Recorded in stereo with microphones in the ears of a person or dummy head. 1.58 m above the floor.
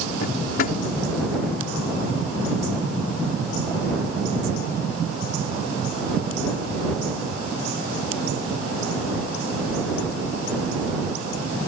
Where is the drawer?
50° left (ahead or behind).